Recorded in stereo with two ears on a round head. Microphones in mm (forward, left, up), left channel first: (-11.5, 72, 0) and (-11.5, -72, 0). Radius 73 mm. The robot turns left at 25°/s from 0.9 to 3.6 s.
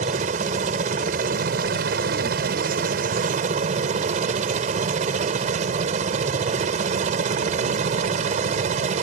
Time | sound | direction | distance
0.0 | a helicopter | 55° right | ?